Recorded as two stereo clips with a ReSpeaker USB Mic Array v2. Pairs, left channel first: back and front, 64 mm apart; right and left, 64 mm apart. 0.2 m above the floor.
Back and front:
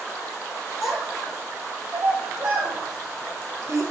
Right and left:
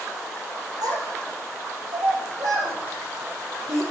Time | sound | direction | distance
0.8 | a child speaking | 85° left | 3 m